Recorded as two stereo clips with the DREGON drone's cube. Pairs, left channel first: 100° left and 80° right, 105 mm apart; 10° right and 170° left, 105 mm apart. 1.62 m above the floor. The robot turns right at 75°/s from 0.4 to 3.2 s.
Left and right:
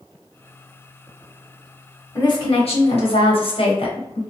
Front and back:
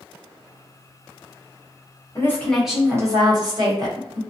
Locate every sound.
2.1 s a woman speaking: 45° left, 1.1 m; by 4.2 s 125° left, 1.1 m